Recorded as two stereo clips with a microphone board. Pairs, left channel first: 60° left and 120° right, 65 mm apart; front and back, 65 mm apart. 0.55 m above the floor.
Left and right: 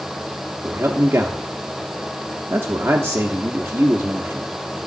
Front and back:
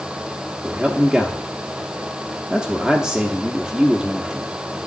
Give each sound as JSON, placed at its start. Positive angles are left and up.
{"t": 0.6, "sound": "a man speaking", "azimuth_deg": -105, "distance_m": 0.9}